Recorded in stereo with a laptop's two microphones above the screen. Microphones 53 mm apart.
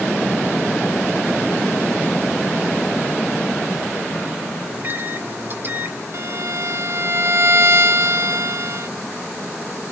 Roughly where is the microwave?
Right.